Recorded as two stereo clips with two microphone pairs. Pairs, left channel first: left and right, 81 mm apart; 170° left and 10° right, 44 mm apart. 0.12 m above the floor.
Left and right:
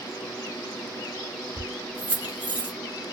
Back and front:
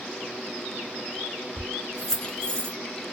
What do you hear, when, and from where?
1.6 s keys jangling: 65° right, 0.7 m; by 2.8 s 150° right, 0.9 m